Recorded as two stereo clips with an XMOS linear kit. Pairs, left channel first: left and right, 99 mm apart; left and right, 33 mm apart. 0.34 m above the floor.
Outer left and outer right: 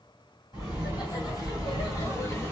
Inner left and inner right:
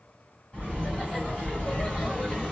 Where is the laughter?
45° left (ahead or behind), 2.5 m; by 2.5 s 25° left (ahead or behind), 1.6 m.